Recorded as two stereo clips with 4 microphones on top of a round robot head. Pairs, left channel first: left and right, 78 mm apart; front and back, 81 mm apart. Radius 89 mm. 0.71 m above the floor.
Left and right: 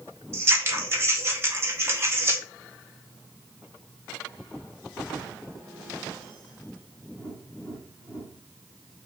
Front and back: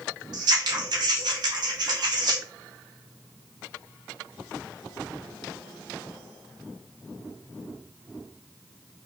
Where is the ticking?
I don't hear ticking.